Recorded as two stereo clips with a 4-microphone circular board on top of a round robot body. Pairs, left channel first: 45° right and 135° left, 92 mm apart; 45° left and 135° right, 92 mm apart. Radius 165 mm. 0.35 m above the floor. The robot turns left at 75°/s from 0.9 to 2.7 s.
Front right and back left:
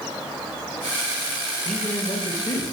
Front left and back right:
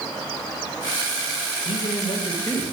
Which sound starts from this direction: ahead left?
A man speaking, at 1.6 s.